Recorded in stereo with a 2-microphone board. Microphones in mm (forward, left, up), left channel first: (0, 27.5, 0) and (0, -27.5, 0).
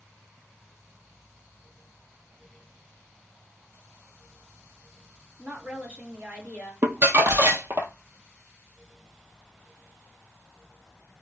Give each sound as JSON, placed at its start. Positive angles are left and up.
{"t": 5.4, "sound": "a woman speaking", "side_deg": -30, "distance_m": 1.9}
{"t": 6.8, "sound": "crumpling", "side_deg": -45, "distance_m": 0.5}